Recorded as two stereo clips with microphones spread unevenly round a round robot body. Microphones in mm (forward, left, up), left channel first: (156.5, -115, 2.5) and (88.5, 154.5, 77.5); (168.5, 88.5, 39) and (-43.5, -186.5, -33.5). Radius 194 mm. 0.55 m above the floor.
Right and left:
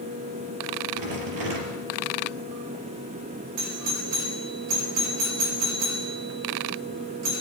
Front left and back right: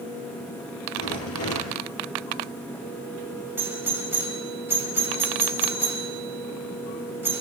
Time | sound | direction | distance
0.9 | a rattle | 110° left | 4 m
3.6 | a doorbell | 155° left | 4 m